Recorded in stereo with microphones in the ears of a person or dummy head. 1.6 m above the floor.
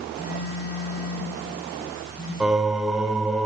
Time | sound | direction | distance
0.2 | a phone buzzing | 40° left (ahead or behind) | 4.5 m
2.4 | singing | 5° right (ahead or behind) | 2 m